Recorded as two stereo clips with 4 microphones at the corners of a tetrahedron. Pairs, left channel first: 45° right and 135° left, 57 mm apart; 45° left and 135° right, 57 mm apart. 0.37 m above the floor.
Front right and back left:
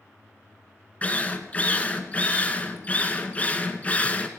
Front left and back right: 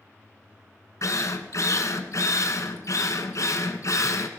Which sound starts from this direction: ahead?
A drill, at 1.0 s.